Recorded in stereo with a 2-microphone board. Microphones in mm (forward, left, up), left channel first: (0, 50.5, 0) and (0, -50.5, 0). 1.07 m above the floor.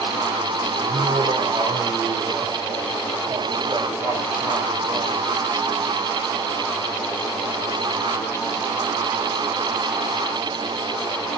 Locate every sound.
0.8 s laughter: 65° right (ahead or behind), 5 m; by 5.2 s 35° right (ahead or behind), 5.5 m